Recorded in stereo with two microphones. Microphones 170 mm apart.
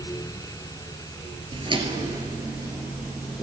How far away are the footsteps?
About 1.2 m.